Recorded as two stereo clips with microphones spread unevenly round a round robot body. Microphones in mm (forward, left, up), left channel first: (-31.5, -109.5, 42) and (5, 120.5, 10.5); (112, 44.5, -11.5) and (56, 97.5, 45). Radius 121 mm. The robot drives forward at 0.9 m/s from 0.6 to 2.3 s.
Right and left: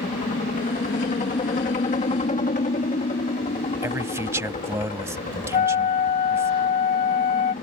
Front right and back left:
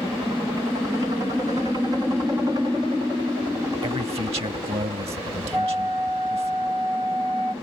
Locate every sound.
0.0 s a helicopter: 135° right; by 7.6 s 145° right
3.8 s a man speaking: 160° left
5.5 s a flute: 155° right